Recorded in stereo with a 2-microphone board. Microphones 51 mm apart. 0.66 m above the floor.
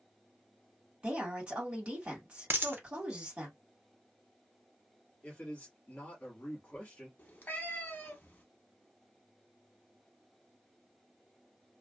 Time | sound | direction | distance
1.0 | a woman speaking | 25° right (ahead or behind) | 1.6 m
2.5 | a dropped coin | 45° right (ahead or behind) | 0.5 m
5.2 | a man speaking | 35° left (ahead or behind) | 1.5 m
7.2 | a cat meowing | 35° left (ahead or behind) | 0.8 m